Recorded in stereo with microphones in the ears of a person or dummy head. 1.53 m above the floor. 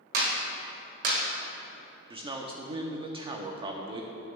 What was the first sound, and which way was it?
A clap, 50° right (ahead or behind).